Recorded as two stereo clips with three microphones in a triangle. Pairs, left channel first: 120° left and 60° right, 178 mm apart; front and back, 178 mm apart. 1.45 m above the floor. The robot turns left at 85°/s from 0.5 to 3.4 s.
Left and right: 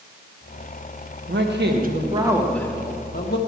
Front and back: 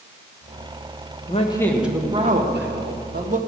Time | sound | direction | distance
1.3 | a man speaking | 45° right | 1.6 m